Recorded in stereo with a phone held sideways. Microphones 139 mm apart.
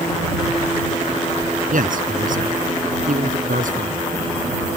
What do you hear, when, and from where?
1.7 s a man speaking: 75° right (ahead or behind)